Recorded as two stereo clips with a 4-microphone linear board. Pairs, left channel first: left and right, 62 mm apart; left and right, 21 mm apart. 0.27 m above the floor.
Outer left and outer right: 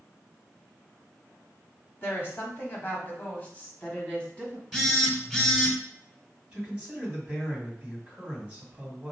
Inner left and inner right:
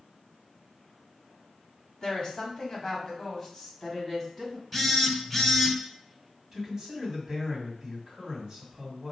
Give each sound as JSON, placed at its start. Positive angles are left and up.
{"t": 2.0, "sound": "a woman speaking", "side_deg": 40, "distance_m": 1.4}
{"t": 4.7, "sound": "a phone buzzing", "side_deg": 5, "distance_m": 1.0}
{"t": 6.5, "sound": "a man speaking", "side_deg": -20, "distance_m": 2.0}